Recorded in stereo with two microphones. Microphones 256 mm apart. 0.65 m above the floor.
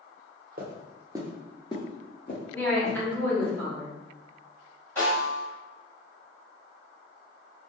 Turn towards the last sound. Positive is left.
turn(degrees=10)  # may be behind; listen again after turning